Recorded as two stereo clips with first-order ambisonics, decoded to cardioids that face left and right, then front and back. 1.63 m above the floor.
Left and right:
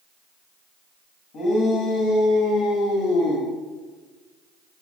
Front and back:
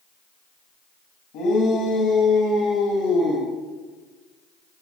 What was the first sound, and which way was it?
A shout, 35° left.